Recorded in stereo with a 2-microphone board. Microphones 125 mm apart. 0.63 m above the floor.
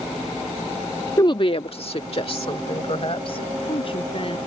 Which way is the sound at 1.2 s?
30° left (ahead or behind).